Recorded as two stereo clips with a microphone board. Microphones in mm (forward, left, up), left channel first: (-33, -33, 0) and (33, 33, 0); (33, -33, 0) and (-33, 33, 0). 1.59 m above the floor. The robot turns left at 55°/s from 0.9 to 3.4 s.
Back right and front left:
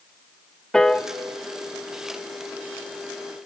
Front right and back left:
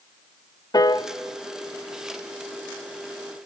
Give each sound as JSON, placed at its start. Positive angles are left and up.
{"t": 0.7, "sound": "a piano", "azimuth_deg": -55, "distance_m": 0.7}